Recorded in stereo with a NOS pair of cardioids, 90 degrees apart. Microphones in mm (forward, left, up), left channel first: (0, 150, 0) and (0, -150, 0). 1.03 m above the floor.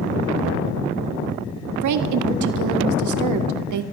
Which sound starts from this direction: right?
A woman speaking, at 1.8 s.